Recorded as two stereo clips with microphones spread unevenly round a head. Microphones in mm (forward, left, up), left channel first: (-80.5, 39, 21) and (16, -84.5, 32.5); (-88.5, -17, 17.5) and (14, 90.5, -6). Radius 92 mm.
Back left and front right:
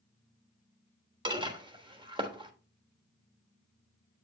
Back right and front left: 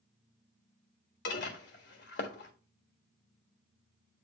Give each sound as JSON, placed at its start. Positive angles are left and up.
{"t": 1.2, "sound": "dishes clattering", "azimuth_deg": -110, "distance_m": 1.5}